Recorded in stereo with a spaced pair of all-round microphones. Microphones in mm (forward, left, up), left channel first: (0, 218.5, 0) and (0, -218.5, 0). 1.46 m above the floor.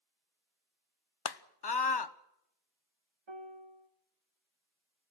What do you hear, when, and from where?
1.2 s a scream: 65° left (ahead or behind), 0.7 m
3.3 s a piano: 85° right, 1.1 m